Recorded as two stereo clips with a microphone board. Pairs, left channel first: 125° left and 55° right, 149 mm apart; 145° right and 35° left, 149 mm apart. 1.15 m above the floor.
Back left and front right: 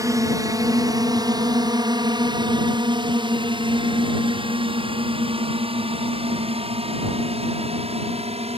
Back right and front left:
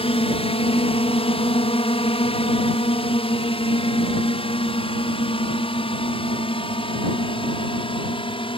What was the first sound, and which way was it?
A drone, 115° right.